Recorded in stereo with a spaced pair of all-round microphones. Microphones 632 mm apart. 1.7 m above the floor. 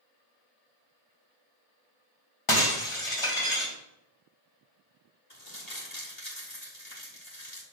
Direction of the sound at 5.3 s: 85° left.